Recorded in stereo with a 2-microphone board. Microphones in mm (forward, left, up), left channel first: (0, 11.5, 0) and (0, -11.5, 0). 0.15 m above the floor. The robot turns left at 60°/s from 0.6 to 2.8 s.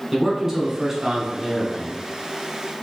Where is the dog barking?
I don't hear a dog barking.